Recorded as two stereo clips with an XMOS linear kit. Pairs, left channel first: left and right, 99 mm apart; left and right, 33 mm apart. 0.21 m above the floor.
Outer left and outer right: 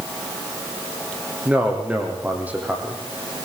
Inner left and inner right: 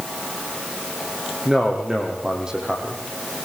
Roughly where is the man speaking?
Centre.